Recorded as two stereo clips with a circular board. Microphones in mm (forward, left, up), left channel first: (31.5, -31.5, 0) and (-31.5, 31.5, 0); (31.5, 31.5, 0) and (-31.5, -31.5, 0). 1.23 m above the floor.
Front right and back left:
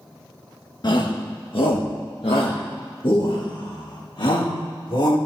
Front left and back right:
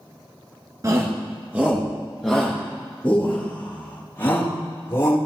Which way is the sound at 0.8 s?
80° right.